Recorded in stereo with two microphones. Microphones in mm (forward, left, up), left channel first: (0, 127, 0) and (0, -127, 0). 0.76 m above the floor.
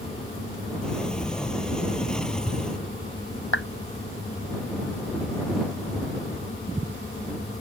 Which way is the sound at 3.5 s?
55° left (ahead or behind).